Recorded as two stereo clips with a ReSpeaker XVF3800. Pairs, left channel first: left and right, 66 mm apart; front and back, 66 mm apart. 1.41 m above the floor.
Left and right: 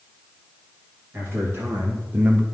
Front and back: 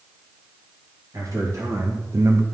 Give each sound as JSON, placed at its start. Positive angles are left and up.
{"t": 1.1, "sound": "a man speaking", "azimuth_deg": -145, "distance_m": 2.0}